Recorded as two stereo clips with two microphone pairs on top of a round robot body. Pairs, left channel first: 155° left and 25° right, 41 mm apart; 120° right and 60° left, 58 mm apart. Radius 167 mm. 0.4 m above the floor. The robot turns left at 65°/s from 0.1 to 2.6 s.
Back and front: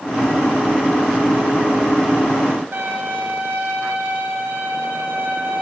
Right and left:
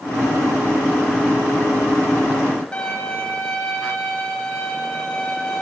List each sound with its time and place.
2.7 s a violin: 45° right, 7.5 m